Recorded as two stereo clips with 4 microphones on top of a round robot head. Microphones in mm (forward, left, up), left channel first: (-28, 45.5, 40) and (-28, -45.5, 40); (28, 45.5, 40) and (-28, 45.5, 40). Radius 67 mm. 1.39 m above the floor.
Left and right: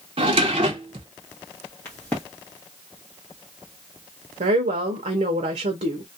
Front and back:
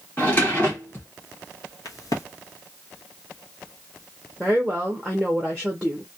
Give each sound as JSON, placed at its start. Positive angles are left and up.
{"t": 0.2, "sound": "a drawer", "azimuth_deg": -75, "distance_m": 0.6}
{"t": 1.9, "sound": "a crack", "azimuth_deg": 10, "distance_m": 1.1}
{"t": 4.4, "sound": "a woman speaking", "azimuth_deg": -85, "distance_m": 0.6}